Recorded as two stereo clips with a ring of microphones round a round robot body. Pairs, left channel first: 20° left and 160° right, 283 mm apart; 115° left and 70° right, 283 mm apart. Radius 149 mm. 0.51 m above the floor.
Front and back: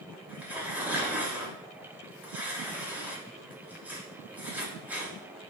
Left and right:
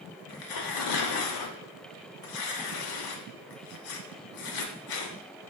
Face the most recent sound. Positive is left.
turn(degrees=120)